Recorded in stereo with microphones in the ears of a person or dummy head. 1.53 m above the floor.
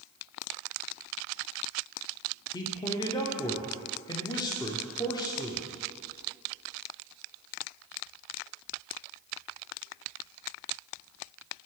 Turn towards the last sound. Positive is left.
turn(degrees=20)  # may be behind; listen again after turning